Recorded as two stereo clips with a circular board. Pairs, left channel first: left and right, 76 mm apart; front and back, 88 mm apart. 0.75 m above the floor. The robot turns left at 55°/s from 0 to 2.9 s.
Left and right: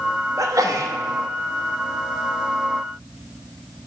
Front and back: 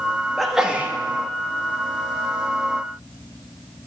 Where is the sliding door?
No sliding door in this recording.